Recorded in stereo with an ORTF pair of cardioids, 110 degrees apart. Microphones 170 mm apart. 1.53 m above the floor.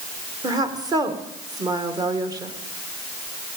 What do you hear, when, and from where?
0.4 s a woman speaking: 20° right, 1.8 m